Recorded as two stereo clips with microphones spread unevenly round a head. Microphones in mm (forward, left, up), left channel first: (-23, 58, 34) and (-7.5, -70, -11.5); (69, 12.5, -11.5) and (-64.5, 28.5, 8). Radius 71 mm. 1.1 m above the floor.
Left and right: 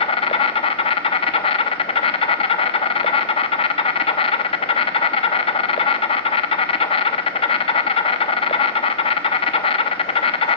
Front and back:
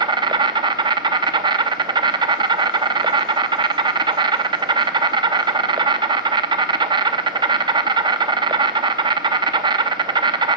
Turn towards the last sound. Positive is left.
turn(degrees=125)